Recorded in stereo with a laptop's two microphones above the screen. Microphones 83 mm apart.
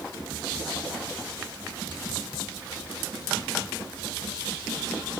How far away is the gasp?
I don't hear a gasp.